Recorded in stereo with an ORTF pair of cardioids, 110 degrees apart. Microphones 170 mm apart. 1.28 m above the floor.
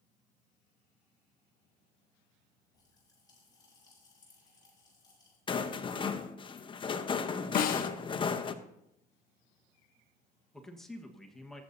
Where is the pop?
20° left, 8 m.